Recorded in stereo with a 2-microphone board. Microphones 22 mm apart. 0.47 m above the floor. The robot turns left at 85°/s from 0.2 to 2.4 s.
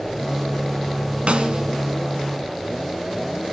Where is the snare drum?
100° right, 0.9 m; by 1.7 s 130° right, 0.9 m.